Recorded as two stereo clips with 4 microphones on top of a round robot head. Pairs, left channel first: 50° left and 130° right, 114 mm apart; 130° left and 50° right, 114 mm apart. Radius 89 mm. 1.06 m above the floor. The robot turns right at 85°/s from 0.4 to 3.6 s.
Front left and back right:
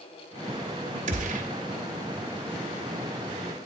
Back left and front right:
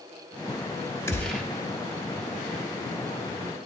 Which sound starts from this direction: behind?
A gunshot, at 1.1 s.